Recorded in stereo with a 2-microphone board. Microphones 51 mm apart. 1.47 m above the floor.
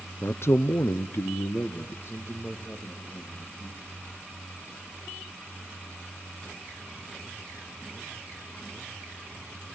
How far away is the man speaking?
About 0.7 m.